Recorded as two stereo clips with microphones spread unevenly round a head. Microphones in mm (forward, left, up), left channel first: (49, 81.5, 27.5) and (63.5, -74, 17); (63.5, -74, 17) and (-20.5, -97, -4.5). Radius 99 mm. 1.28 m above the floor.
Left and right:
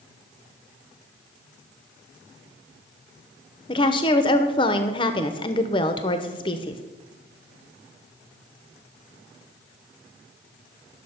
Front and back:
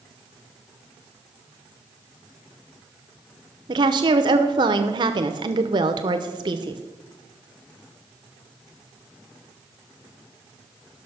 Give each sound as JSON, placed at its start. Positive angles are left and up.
{"t": 3.7, "sound": "a woman speaking", "azimuth_deg": 160, "distance_m": 0.7}